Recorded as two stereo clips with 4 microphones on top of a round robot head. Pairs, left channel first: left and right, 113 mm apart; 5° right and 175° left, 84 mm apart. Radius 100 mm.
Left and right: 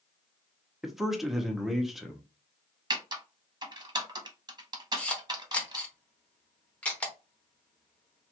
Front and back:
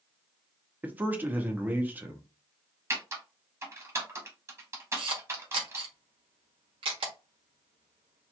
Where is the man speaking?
175° right, 0.9 m.